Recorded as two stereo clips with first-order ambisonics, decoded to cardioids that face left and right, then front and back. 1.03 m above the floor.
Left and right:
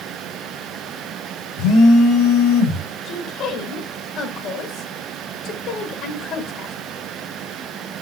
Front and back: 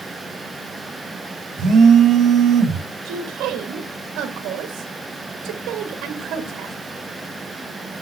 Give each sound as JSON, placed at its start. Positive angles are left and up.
{"t": 1.6, "sound": "a phone buzzing", "azimuth_deg": 125, "distance_m": 1.7}
{"t": 3.0, "sound": "a woman speaking", "azimuth_deg": 140, "distance_m": 1.5}